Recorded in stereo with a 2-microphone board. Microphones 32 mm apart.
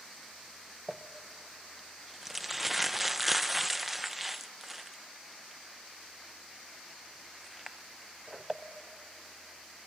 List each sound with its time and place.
0.9 s crumpling: 5° right (ahead or behind), 0.7 m